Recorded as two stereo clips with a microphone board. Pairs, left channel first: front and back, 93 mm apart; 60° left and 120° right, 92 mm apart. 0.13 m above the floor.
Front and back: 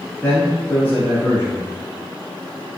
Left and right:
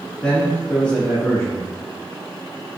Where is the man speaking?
10° left, 1.1 m.